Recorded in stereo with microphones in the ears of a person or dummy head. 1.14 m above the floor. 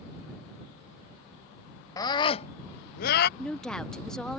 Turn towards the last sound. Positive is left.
turn(degrees=5)  # may be behind; listen again after turning